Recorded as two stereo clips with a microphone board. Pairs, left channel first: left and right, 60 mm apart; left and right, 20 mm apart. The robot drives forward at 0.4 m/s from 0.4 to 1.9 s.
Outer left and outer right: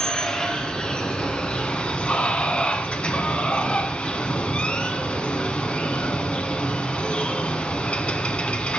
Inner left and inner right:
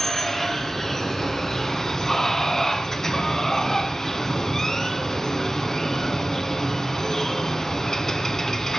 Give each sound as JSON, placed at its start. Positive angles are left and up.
{"t": 0.0, "sound": "running water", "side_deg": 15, "distance_m": 2.0}